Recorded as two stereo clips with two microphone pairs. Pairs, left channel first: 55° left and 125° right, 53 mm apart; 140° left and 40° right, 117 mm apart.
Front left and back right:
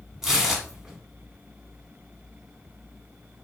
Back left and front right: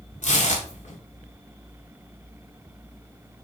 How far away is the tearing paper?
About 0.6 m.